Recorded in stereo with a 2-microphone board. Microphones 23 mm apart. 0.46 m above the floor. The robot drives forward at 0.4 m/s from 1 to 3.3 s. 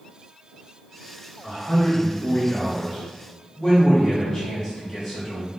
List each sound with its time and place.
1.4 s a man speaking: 25° left (ahead or behind), 1.1 m; by 5.5 s 20° left (ahead or behind), 1.5 m